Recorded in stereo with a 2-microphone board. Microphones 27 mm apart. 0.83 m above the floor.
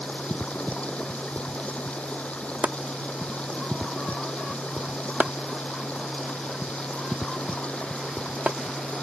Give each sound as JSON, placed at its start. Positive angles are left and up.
{"t": 0.0, "sound": "running water", "side_deg": 50}
{"t": 2.6, "sound": "chopping", "side_deg": -65}